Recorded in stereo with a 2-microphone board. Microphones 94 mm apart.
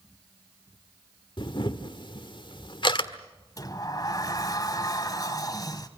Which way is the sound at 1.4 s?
55° left (ahead or behind).